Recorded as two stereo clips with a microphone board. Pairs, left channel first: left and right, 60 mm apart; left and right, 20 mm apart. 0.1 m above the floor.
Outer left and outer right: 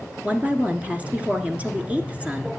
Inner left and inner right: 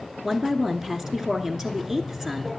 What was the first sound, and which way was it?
A woman speaking, 20° right (ahead or behind).